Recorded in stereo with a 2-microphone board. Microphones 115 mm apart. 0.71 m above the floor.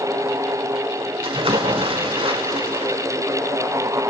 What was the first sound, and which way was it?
A splash, 50° right (ahead or behind).